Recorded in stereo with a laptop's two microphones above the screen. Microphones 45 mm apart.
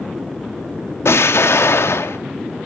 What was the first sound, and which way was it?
An explosion, 80° left.